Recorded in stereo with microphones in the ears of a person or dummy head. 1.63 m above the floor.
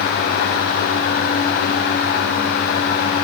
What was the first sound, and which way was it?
Only background noise.